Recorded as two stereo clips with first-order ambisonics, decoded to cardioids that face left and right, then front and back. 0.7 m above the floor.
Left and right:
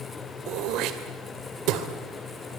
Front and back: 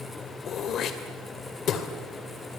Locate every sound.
0.5 s throat clearing: 55° right, 2 m